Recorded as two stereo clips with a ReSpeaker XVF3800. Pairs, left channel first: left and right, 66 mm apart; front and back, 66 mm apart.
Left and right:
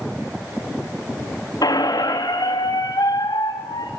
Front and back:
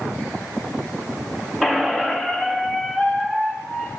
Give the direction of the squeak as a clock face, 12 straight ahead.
9 o'clock.